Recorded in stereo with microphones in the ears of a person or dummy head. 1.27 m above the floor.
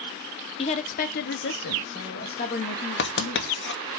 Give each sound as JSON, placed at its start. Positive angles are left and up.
{"t": 0.6, "sound": "a woman speaking", "side_deg": 30, "distance_m": 0.8}
{"t": 3.0, "sound": "writing", "side_deg": 55, "distance_m": 0.8}